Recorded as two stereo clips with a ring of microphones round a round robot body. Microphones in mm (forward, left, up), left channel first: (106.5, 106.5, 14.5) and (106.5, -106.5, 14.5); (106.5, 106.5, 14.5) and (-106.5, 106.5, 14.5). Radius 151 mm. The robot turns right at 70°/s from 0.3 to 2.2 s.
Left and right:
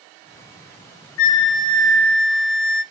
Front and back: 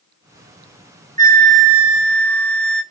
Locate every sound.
1.2 s a flute: 125° left, 0.6 m; by 2.8 s 165° right, 0.6 m